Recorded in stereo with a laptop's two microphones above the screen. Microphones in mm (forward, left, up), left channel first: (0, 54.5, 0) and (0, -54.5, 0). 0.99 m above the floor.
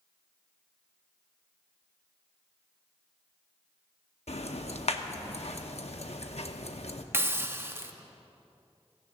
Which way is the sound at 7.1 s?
20° right (ahead or behind).